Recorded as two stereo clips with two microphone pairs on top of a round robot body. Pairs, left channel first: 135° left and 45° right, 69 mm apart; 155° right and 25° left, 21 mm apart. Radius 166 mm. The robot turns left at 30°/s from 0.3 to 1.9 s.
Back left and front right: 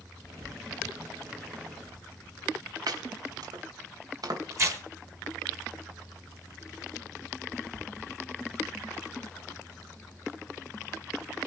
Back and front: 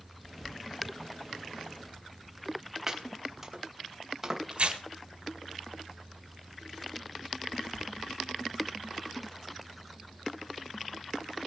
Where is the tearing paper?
Straight ahead, 3.5 m.